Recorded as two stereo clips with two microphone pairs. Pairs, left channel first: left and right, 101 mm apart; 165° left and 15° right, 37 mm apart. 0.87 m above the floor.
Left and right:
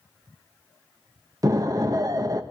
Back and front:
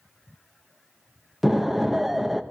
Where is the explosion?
100° right, 0.7 m.